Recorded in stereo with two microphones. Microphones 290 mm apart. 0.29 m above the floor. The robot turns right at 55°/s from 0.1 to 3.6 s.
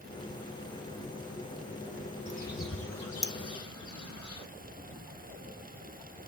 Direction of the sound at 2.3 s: 25° left (ahead or behind).